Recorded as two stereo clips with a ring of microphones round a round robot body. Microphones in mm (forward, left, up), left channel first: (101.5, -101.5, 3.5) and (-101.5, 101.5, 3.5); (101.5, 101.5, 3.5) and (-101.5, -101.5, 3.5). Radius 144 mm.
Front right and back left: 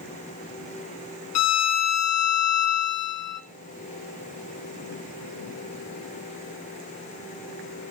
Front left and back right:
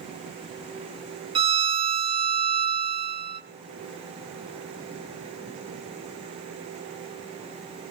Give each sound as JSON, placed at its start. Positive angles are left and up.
{"t": 1.4, "sound": "a violin", "azimuth_deg": -65, "distance_m": 1.0}